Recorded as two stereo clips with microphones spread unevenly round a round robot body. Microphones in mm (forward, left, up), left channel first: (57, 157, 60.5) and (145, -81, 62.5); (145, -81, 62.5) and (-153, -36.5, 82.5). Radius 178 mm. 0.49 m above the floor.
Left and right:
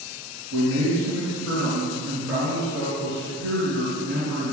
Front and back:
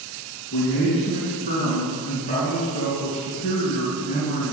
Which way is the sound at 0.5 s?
80° right.